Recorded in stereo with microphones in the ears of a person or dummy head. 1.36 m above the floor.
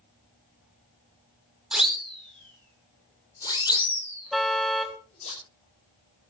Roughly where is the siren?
Centre.